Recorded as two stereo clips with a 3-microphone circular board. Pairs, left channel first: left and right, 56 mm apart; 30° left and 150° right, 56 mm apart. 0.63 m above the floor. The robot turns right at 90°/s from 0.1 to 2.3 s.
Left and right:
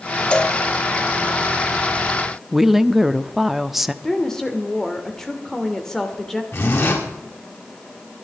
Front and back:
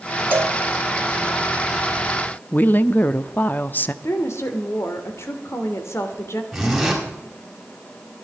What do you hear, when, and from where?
0.3 s a cowbell: 160° left, 1.4 m; by 0.6 s 175° right, 1.4 m
2.5 s a woman speaking: 5° right, 0.7 m
4.0 s a woman speaking: 10° left, 2 m
6.5 s a zipper: 120° left, 5.5 m